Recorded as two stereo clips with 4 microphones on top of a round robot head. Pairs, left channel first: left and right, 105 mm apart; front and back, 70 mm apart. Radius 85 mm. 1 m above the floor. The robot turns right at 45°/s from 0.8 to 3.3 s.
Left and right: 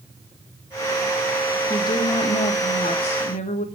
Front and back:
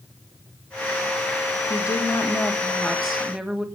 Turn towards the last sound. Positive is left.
turn(degrees=105)